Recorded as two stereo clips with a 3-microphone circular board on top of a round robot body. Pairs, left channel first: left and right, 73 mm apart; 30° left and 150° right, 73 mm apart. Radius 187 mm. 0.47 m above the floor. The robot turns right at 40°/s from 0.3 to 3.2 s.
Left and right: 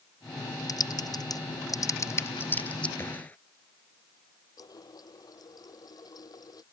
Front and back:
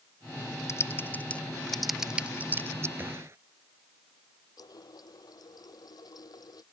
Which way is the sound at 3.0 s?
145° left.